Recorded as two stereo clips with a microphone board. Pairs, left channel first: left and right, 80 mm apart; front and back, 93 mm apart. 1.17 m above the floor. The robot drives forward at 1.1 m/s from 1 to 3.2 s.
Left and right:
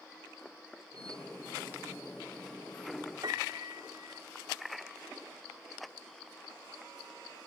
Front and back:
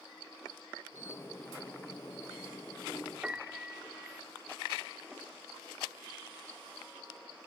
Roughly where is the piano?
Right.